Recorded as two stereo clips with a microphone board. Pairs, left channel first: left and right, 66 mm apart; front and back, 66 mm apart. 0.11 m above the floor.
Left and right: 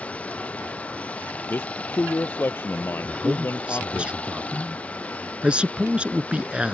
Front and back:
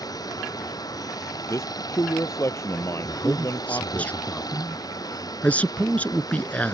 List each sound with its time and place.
0.0 s running water: 20° left
1.5 s a man speaking: 40° left
3.0 s a man speaking: 40° right